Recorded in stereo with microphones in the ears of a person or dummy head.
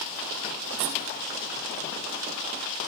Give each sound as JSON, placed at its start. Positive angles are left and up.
{"t": 0.8, "sound": "a squeak", "side_deg": -80, "distance_m": 4.0}